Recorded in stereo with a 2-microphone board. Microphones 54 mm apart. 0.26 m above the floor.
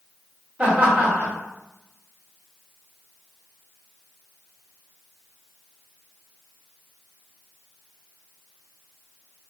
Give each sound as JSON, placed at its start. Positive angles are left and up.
{"t": 0.6, "sound": "laughter", "side_deg": -25, "distance_m": 1.6}